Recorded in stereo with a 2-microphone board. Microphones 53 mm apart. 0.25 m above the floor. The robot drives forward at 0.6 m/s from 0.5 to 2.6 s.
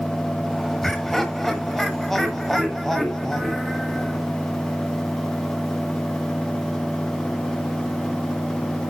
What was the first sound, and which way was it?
Laughter, 5° left (ahead or behind).